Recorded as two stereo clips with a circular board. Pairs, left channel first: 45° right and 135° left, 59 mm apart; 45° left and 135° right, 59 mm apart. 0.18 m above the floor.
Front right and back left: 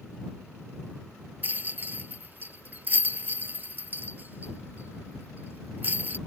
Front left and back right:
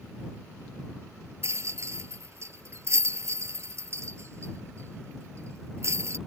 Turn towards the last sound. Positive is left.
turn(degrees=-170)